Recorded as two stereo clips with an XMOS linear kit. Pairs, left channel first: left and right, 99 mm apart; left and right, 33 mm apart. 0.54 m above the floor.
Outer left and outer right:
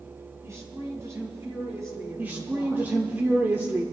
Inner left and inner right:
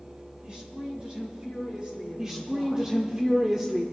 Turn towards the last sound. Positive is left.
turn(degrees=-20)  # may be behind; listen again after turning